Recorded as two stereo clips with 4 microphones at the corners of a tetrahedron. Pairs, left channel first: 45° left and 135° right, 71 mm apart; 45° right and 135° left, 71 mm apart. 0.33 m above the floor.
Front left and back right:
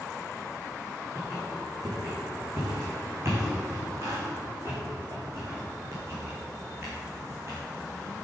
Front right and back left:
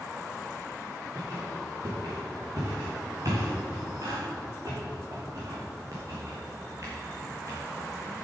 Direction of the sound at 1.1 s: 175° left.